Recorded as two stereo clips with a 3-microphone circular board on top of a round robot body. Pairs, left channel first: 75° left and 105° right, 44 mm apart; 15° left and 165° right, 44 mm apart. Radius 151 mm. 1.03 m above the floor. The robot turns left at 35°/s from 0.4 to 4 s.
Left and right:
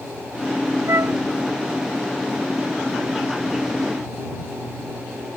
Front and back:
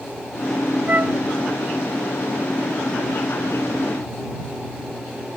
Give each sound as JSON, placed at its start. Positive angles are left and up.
{"t": 0.9, "sound": "a flute", "azimuth_deg": -110}